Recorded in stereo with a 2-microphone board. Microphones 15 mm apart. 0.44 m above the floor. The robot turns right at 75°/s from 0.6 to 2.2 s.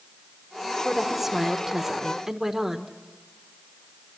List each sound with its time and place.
0.8 s a woman speaking: 10° right (ahead or behind), 1.2 m; by 3.0 s 20° right (ahead or behind), 1.2 m